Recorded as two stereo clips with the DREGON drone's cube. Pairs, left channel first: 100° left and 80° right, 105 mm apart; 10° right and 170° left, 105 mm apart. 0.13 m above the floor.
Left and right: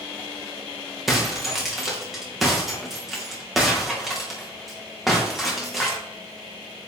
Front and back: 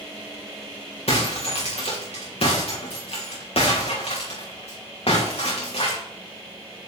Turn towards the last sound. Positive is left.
turn(degrees=10)